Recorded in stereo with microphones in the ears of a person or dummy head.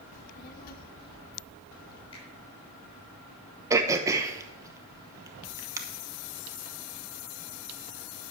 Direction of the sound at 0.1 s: 40° left (ahead or behind).